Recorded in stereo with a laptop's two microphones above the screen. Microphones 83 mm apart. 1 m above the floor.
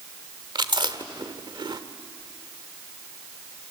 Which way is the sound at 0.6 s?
65° right (ahead or behind).